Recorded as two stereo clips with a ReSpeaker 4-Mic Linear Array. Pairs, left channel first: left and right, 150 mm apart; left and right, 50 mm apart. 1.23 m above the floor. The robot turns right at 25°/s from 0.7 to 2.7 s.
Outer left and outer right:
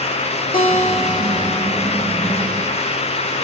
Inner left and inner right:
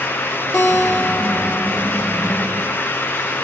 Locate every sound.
0.5 s a guitar: 75° left (ahead or behind), 3.5 m